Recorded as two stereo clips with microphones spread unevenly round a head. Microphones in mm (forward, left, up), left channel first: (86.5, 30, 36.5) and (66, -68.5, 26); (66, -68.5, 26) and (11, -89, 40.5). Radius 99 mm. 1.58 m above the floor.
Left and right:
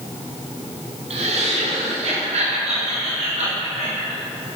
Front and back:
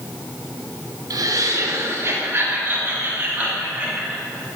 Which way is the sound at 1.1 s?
145° right.